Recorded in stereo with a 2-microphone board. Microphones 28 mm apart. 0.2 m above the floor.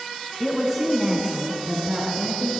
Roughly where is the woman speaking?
Centre.